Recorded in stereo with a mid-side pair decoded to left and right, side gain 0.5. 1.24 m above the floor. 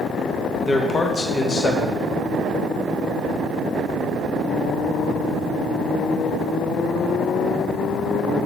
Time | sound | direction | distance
0.7 | a man speaking | 30° left | 0.6 m